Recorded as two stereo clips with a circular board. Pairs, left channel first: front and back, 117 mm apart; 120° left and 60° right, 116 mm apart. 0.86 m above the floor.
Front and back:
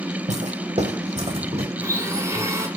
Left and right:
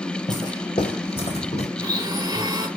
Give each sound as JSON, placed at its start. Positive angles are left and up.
{"t": 0.3, "sound": "footsteps", "azimuth_deg": 175, "distance_m": 2.5}
{"t": 1.8, "sound": "a blender", "azimuth_deg": -115, "distance_m": 2.0}